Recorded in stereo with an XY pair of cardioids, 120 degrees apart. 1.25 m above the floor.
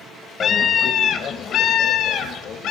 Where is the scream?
50° left, 1.4 m; by 2.7 s 75° left, 2.5 m.